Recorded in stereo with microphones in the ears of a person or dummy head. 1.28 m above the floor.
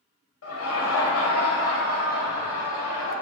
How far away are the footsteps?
I don't hear footsteps.